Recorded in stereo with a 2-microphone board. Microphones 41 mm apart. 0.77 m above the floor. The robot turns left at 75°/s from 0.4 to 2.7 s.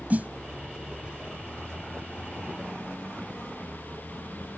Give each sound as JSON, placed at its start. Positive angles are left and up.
{"t": 0.1, "sound": "a snare drum", "side_deg": -40}